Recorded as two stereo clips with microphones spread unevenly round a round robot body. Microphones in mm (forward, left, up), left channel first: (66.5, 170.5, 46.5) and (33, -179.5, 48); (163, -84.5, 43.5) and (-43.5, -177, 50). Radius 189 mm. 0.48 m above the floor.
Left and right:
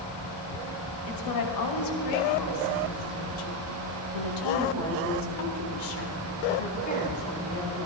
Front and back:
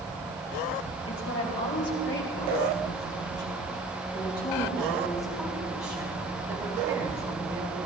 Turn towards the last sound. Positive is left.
turn(degrees=160)